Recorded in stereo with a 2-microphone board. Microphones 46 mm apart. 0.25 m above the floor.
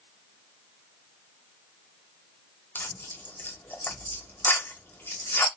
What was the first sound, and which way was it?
Tearing paper, 50° left (ahead or behind).